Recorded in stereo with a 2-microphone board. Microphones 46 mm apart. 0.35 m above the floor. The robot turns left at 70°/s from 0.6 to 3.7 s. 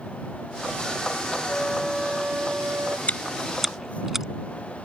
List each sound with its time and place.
1.5 s a flute: 25° left; by 3.0 s 80° right
3.1 s chewing: 35° left (ahead or behind); by 4.2 s 10° right (ahead or behind)